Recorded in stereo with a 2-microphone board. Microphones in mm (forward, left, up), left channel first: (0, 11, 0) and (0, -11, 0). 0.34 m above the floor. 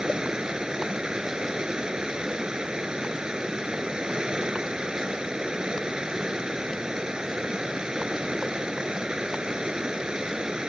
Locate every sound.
0.0 s running water: 35° right (ahead or behind)